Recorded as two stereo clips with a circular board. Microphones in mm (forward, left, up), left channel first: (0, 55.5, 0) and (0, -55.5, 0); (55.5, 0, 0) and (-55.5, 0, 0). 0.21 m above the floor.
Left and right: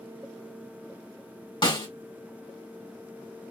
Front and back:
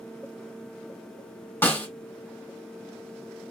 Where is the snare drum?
65° left, 2.5 m.